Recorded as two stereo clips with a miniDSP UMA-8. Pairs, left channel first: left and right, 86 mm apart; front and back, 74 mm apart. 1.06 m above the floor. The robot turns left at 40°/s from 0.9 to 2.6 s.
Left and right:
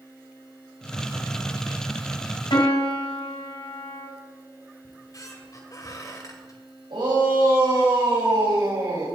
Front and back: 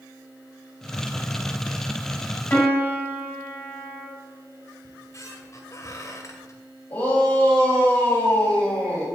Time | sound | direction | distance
2.5 | a piano | 65° left | 5 m
4.8 | a squeak | 45° left | 2 m
6.9 | a shout | 60° right | 7 m